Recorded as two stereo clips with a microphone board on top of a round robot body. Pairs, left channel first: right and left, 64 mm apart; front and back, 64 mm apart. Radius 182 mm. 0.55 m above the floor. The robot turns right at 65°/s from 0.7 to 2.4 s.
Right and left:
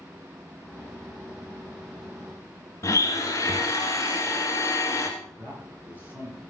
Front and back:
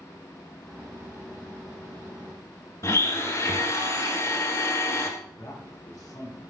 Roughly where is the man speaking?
Ahead left.